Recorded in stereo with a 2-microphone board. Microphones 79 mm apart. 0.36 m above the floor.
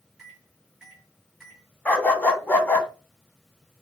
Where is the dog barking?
20° left (ahead or behind), 1.0 m.